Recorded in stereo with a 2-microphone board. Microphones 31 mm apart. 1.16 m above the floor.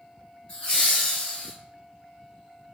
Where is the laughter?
35° left (ahead or behind), 1.4 m; by 1.5 s 15° left (ahead or behind), 1.6 m.